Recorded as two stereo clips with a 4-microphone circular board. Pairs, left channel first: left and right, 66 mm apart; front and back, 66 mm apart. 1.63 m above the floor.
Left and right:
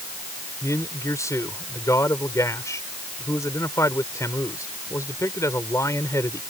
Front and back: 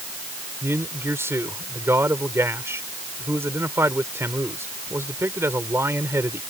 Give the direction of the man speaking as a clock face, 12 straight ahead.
8 o'clock.